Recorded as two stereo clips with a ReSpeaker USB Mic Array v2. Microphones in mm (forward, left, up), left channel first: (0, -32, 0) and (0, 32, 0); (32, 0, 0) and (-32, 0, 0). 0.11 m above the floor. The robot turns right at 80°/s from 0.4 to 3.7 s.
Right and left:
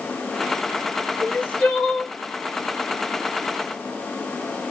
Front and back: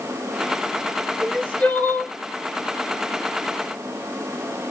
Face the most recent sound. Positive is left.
turn(degrees=130)